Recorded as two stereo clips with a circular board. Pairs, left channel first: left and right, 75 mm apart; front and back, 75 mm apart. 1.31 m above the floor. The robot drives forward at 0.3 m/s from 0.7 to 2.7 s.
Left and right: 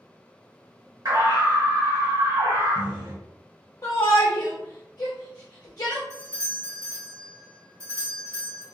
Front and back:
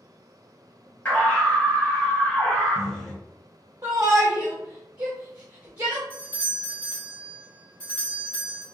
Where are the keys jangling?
I don't hear keys jangling.